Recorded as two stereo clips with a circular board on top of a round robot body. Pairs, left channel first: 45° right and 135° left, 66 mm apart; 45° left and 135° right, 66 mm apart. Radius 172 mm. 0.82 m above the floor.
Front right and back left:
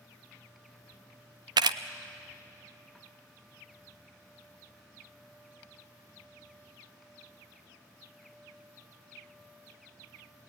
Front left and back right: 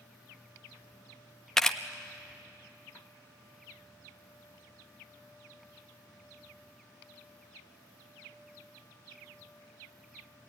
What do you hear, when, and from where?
1.6 s a camera shutter: 130° left, 0.5 m